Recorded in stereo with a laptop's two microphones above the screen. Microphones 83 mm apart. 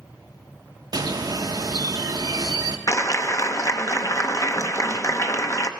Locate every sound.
0.9 s a bird: 50° right (ahead or behind), 0.6 m
2.9 s a clap: 40° left (ahead or behind), 0.7 m